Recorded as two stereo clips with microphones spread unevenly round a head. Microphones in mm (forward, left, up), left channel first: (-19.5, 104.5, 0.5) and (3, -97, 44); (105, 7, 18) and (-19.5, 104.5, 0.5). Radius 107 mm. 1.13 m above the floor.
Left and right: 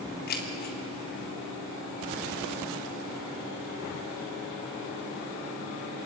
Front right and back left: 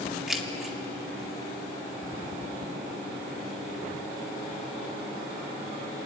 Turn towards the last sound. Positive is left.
turn(degrees=55)